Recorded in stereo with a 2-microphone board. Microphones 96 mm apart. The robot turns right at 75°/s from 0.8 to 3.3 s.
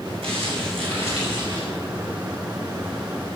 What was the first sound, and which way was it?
Crumpling, 100° right.